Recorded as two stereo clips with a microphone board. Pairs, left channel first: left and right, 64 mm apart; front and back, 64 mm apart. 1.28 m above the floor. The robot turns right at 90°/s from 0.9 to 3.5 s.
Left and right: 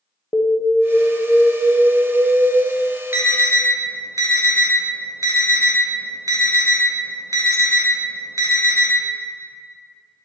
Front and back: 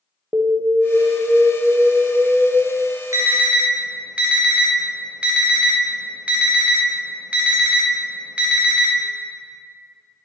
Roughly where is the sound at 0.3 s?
Behind left.